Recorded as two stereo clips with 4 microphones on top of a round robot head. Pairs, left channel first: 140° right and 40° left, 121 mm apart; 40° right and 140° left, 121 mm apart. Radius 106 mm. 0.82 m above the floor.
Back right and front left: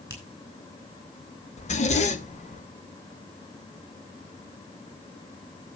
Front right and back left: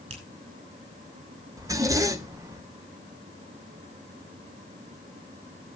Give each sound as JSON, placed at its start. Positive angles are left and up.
{"t": 0.1, "sound": "a finger snap", "azimuth_deg": 110, "distance_m": 7.0}
{"t": 1.6, "sound": "a zipper", "azimuth_deg": -160, "distance_m": 1.4}